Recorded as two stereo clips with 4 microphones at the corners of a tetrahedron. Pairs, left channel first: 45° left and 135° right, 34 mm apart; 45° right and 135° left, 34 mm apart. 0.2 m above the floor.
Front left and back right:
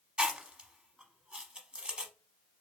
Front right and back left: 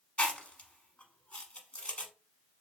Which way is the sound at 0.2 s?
85° right.